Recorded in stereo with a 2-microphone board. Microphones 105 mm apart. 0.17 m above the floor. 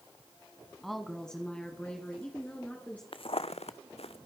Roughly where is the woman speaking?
Centre.